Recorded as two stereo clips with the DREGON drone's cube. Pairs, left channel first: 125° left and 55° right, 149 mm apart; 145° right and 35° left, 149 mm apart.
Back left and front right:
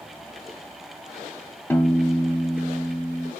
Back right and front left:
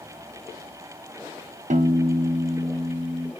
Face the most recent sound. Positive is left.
turn(degrees=50)